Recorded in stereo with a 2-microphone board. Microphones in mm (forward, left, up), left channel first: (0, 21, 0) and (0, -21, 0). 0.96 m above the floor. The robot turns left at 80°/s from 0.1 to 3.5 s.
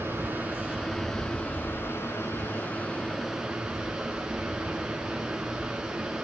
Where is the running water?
105° right, 5.5 m; by 6.2 s 20° right, 5.5 m.